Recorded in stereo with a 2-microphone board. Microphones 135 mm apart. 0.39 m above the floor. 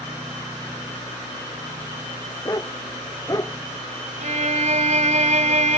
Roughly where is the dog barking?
Left.